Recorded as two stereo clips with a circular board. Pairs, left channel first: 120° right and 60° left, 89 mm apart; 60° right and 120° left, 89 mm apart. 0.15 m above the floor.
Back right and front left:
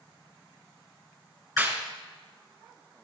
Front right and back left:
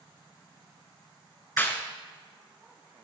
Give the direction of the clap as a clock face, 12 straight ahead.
12 o'clock.